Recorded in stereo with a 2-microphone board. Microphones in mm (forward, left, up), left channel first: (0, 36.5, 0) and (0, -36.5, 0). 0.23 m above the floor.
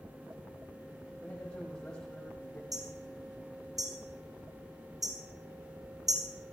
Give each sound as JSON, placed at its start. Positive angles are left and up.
{"t": 1.2, "sound": "a man speaking", "side_deg": 15, "distance_m": 9.5}
{"t": 2.7, "sound": "hammering", "side_deg": -60, "distance_m": 6.5}